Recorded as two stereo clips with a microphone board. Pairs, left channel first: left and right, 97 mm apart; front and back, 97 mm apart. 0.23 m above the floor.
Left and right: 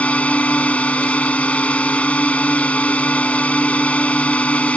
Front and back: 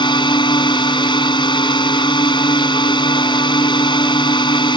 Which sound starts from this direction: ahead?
A drone, at 0.0 s.